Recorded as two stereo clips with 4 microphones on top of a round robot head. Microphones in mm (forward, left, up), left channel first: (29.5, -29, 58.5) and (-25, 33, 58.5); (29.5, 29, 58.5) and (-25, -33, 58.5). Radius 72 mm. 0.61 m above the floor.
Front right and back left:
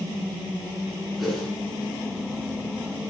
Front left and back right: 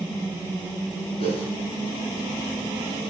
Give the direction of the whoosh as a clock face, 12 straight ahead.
11 o'clock.